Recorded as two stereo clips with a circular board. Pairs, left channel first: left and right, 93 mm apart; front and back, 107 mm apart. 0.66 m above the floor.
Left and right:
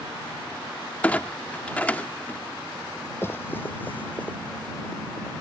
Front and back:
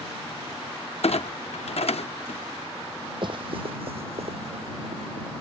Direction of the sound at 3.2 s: 150° left.